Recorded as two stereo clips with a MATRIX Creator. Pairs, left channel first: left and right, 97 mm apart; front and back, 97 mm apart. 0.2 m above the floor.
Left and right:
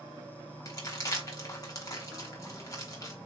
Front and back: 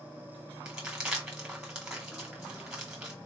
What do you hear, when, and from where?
0.7 s crumpling: 105° left, 1.6 m